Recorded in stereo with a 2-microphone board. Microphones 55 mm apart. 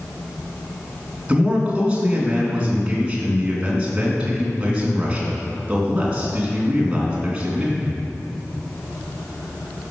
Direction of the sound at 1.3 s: 20° right (ahead or behind).